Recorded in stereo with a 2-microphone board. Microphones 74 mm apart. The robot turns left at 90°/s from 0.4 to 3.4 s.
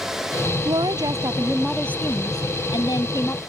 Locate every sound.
0.7 s a woman speaking: 90° right; by 3.4 s 25° left